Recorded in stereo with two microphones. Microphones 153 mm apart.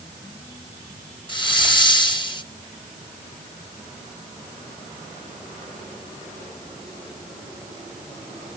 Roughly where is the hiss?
Left.